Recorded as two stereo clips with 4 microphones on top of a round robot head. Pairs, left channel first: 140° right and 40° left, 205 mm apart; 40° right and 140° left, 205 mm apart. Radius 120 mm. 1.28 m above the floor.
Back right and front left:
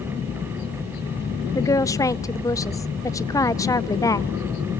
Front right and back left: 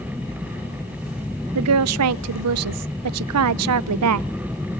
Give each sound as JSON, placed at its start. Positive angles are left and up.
{"t": 1.6, "sound": "a woman speaking", "azimuth_deg": 145, "distance_m": 0.5}